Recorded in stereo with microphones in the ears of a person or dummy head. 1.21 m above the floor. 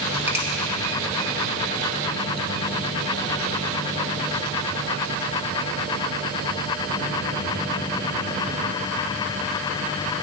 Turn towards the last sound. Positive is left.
turn(degrees=-15)  # may be behind; listen again after turning